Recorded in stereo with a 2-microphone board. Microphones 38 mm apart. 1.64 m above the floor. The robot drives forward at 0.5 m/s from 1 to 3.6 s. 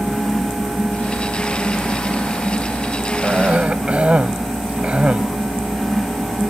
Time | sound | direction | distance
3.2 | a cough | 35° right (ahead or behind) | ?